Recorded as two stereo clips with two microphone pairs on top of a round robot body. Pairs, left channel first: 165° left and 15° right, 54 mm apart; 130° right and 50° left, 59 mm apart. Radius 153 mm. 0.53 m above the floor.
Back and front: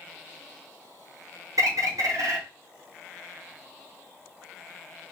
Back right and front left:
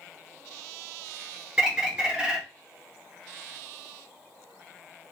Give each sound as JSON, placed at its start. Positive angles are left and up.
{"t": 1.6, "sound": "a bird", "azimuth_deg": -20, "distance_m": 1.1}